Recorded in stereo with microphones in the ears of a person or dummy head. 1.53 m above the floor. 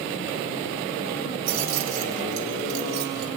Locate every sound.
1.5 s keys jangling: 75° right (ahead or behind), 4.5 m; by 3.3 s 60° right (ahead or behind), 3.5 m